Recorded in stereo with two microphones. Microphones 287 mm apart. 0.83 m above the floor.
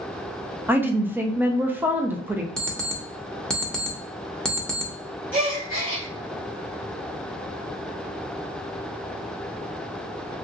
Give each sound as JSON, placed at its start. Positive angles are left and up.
{"t": 0.7, "sound": "a woman speaking", "side_deg": -5, "distance_m": 0.5}
{"t": 2.6, "sound": "an alarm clock", "side_deg": 5, "distance_m": 0.7}
{"t": 5.3, "sound": "a gasp", "side_deg": -30, "distance_m": 1.7}